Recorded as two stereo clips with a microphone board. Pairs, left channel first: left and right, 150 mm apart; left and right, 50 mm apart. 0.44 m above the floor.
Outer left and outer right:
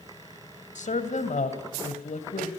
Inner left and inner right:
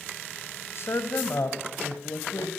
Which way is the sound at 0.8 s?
55° left (ahead or behind).